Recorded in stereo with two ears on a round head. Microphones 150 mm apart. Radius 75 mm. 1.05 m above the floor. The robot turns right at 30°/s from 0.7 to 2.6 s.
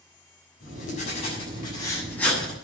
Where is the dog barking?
I don't hear a dog barking.